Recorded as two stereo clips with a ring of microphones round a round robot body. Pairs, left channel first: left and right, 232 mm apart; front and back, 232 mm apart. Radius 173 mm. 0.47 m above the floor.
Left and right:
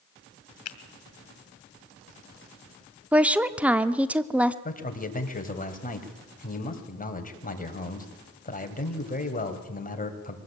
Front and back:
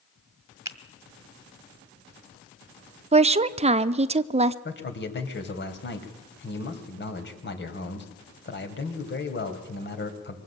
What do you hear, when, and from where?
0.7 s a finger snap: 105° left, 2 m
3.1 s a woman speaking: 170° right, 0.7 m
4.7 s a man speaking: 40° left, 3.5 m